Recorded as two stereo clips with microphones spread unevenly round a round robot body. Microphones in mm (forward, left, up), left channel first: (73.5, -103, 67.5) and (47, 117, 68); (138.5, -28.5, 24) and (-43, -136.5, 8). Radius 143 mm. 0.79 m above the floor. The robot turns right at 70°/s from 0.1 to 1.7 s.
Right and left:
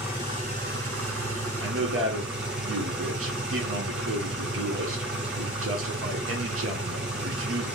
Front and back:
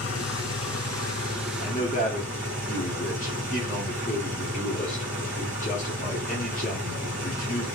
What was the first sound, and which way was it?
An engine running, 20° left.